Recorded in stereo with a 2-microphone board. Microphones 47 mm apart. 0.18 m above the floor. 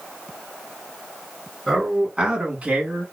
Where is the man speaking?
10° right (ahead or behind), 2 m; by 3.0 s 35° right (ahead or behind), 2 m.